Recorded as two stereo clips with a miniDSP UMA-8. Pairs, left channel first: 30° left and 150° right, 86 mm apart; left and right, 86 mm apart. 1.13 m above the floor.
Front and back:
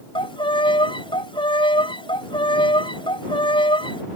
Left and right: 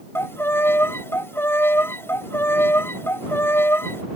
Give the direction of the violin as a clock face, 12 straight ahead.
11 o'clock.